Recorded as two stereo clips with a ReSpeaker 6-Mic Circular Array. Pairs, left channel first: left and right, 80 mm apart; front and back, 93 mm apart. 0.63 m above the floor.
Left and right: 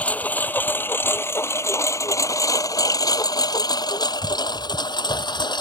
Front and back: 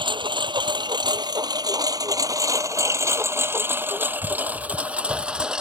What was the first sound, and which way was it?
A lawn mower, 160° left.